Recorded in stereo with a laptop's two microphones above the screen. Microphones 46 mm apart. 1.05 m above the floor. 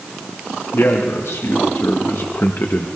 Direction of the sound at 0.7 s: 70° left (ahead or behind).